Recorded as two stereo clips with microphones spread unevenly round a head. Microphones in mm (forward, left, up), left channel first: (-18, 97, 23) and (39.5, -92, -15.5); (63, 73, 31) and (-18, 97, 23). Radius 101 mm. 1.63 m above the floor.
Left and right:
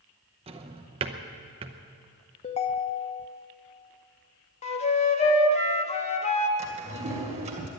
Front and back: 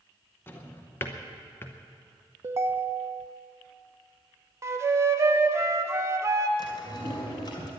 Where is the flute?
115° left, 1.0 m.